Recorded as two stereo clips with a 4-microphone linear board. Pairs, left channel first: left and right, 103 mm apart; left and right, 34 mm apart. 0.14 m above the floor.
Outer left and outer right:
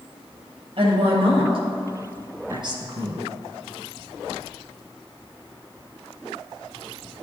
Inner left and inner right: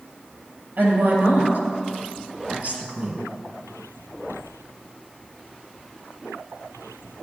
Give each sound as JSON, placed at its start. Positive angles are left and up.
{"t": 0.8, "sound": "a woman speaking", "side_deg": -65, "distance_m": 3.0}